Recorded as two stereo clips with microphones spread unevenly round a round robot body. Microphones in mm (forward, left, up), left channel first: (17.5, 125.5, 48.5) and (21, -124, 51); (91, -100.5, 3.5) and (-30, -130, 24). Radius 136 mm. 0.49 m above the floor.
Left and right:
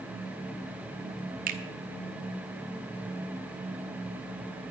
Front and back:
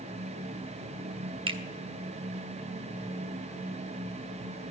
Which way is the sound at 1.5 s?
130° right.